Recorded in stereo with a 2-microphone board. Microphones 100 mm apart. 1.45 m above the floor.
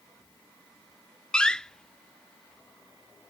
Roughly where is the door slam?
Centre.